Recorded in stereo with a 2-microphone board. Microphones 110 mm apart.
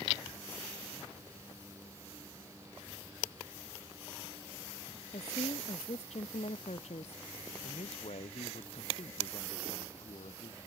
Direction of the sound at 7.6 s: 80° left.